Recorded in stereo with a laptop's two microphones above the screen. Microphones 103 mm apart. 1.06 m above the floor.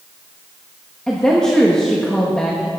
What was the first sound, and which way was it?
A woman speaking, 10° left (ahead or behind).